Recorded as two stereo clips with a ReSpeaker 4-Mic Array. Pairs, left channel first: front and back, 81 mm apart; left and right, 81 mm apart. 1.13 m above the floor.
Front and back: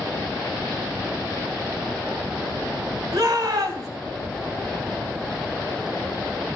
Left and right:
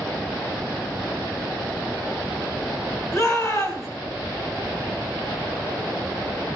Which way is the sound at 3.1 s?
140° left.